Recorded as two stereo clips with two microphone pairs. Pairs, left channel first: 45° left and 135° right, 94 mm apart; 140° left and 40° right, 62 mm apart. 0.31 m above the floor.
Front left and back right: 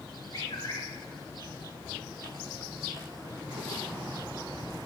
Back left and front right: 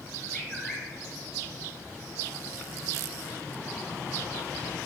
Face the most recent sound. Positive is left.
turn(degrees=50)